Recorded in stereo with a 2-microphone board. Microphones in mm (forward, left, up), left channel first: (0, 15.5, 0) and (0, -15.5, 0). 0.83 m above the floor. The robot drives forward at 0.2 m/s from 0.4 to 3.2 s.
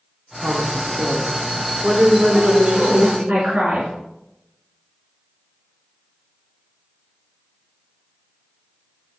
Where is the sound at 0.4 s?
55° right (ahead or behind), 1.7 m; by 3.3 s 40° right (ahead or behind), 2 m.